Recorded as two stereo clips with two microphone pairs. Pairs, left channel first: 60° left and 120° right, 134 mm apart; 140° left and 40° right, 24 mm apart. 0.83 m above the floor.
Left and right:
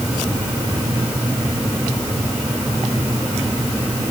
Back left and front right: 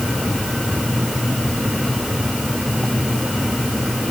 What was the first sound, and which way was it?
Only background noise.